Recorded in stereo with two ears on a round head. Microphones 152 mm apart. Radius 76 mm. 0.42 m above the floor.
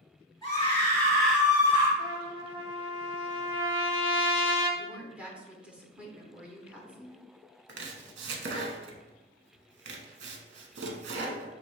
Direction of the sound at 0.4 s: 25° left (ahead or behind).